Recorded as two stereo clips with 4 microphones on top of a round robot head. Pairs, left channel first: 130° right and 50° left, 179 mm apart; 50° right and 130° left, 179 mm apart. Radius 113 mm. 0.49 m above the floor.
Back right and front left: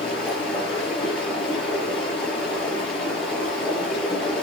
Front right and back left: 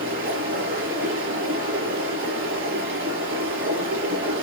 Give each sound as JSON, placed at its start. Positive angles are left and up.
{"t": 0.0, "sound": "running water", "azimuth_deg": 145, "distance_m": 5.5}